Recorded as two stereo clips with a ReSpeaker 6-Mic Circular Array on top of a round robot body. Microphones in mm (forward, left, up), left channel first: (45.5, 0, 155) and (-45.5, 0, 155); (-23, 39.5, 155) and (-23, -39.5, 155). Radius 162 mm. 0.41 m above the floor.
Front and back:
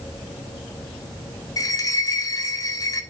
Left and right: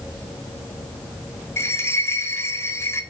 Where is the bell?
40° left, 2 m.